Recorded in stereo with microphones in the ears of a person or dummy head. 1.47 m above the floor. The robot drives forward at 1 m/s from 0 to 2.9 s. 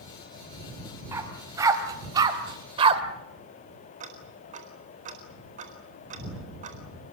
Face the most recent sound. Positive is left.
turn(degrees=-40)  # may be behind; listen again after turning